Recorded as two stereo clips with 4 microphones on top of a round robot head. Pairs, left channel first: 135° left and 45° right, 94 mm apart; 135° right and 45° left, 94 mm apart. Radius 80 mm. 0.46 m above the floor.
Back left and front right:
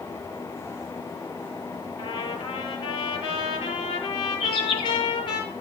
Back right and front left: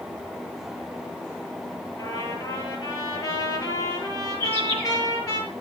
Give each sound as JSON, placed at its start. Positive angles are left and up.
{"t": 2.0, "sound": "a trumpet", "azimuth_deg": 170, "distance_m": 7.0}
{"t": 4.4, "sound": "a bird", "azimuth_deg": 155, "distance_m": 5.5}